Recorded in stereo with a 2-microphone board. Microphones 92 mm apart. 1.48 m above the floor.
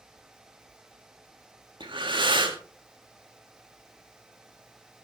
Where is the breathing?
60° right (ahead or behind), 1.8 m.